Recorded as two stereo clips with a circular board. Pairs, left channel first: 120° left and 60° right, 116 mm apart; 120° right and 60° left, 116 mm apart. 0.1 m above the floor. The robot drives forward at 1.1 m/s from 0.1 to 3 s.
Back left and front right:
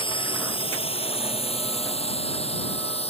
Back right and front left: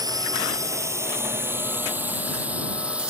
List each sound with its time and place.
0.0 s a drone: 105° left; by 3.1 s 140° left